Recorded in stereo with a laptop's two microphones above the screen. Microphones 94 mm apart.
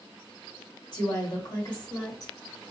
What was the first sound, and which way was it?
A woman speaking, 50° left (ahead or behind).